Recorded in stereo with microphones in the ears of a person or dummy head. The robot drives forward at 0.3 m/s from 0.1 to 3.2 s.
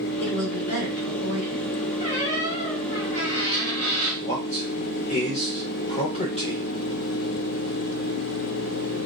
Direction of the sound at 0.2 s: 50° left (ahead or behind).